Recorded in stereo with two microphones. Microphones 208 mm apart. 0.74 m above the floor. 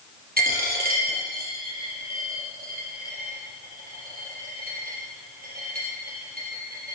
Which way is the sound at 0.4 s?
45° right (ahead or behind).